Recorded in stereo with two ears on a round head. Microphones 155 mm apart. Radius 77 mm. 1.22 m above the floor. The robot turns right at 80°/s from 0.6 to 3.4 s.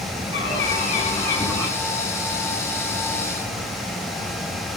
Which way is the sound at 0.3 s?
95° left.